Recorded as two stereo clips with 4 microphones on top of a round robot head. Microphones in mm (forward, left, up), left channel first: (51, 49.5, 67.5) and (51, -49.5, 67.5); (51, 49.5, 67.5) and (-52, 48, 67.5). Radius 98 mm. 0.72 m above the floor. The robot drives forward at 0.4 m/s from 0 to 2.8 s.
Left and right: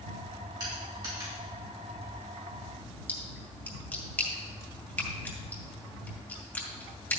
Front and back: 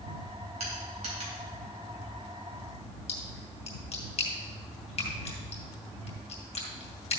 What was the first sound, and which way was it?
Crushing, 145° right.